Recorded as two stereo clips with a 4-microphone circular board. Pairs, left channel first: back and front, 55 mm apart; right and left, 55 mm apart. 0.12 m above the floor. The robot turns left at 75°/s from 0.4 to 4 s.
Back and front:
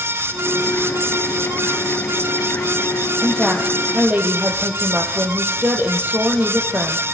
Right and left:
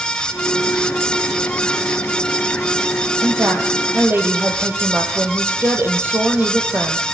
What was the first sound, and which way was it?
A woman speaking, 105° left.